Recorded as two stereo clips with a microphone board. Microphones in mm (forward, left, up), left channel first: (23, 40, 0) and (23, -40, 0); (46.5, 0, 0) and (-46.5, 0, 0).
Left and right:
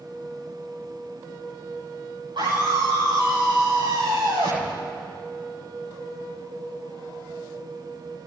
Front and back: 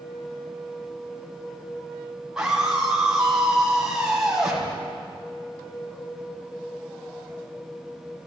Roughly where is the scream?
Right.